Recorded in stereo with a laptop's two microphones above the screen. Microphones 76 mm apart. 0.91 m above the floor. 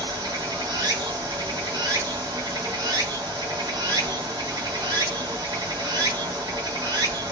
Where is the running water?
60° right (ahead or behind), 1.3 m.